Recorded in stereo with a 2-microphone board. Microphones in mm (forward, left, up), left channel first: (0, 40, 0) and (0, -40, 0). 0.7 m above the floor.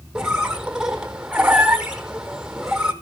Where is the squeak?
10° right (ahead or behind), 1.3 m.